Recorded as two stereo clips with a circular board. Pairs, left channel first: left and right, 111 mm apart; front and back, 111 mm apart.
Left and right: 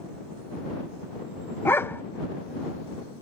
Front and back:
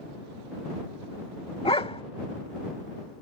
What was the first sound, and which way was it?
A dog barking, 25° left.